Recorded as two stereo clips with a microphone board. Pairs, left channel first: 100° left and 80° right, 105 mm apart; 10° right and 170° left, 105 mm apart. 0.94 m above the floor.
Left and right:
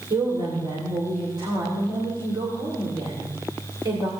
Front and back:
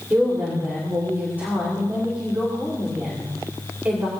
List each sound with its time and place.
0.1 s a woman speaking: 115° right, 2.5 m